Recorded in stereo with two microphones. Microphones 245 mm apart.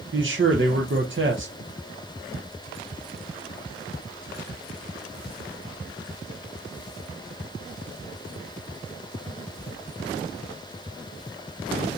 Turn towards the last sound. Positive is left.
turn(degrees=-50)  # may be behind; listen again after turning